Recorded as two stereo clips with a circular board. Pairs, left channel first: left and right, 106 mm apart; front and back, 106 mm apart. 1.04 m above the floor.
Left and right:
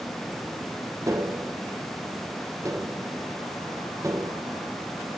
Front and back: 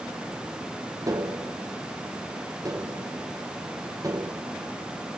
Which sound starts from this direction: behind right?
Tapping, at 1.1 s.